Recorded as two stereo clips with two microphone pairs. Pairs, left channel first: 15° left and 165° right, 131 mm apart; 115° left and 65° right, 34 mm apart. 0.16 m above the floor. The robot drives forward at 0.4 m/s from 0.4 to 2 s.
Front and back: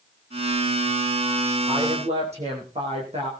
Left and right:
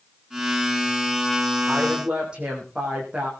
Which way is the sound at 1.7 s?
125° right.